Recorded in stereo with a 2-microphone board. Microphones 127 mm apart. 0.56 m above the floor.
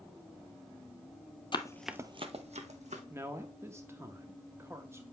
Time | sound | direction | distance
1.5 | running footsteps | 40° left (ahead or behind) | 0.8 m
3.1 | a man speaking | 20° right (ahead or behind) | 0.7 m